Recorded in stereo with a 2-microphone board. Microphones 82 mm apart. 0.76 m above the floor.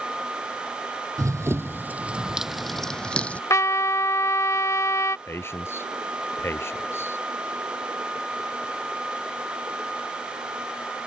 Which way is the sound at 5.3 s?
30° left (ahead or behind).